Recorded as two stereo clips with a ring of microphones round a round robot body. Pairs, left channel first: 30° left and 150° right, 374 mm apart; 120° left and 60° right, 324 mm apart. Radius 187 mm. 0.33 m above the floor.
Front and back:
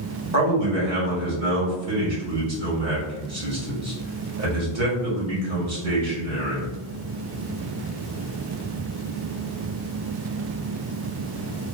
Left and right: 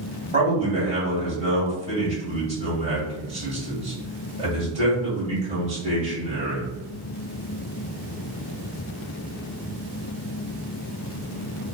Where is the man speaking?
125° right, 1.8 m.